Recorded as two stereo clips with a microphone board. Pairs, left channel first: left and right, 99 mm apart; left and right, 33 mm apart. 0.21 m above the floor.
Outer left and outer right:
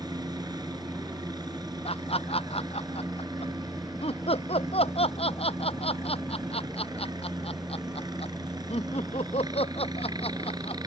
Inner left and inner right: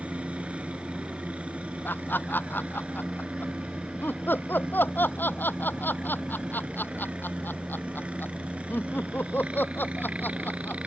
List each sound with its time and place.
0.0 s a helicopter: 40° right (ahead or behind)
1.9 s laughter: 80° left